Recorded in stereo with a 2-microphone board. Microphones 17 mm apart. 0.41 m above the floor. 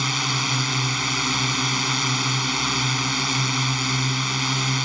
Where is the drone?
10° right (ahead or behind).